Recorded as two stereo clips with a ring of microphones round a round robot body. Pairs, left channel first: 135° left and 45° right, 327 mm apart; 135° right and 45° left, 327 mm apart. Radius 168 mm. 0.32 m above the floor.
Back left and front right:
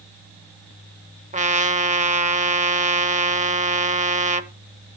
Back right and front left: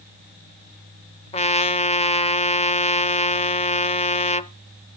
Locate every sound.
1.3 s a trumpet: 85° right, 0.8 m